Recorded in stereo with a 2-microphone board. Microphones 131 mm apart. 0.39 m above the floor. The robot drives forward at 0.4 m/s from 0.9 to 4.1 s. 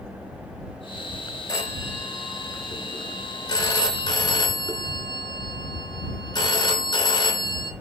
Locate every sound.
1.5 s a phone ringing: 25° left (ahead or behind), 4 m; by 7.7 s 30° left (ahead or behind), 3 m